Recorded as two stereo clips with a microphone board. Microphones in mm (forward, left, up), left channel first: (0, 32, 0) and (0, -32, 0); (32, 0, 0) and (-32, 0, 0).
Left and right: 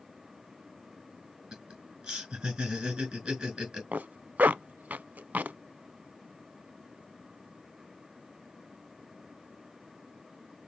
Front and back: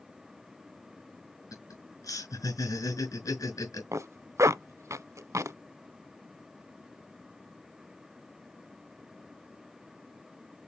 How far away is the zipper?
About 0.6 m.